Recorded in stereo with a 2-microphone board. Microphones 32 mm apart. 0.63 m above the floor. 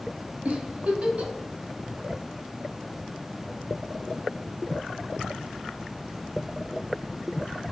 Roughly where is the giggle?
Right.